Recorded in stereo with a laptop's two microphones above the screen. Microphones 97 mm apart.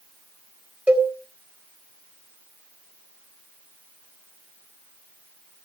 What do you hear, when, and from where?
0.9 s a cowbell: 15° right (ahead or behind), 1.4 m